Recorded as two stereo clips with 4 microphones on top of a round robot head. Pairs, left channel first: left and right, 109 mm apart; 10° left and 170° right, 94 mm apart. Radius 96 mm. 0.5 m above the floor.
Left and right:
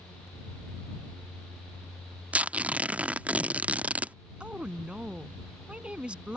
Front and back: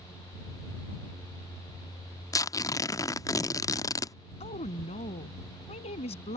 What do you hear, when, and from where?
2.3 s tearing paper: 20° right
4.4 s a woman speaking: 10° right